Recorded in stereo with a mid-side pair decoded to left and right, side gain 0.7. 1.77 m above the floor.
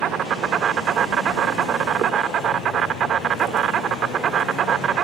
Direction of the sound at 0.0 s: 40° right.